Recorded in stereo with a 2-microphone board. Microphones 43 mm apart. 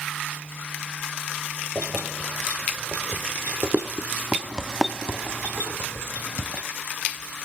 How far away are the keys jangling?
About 5 m.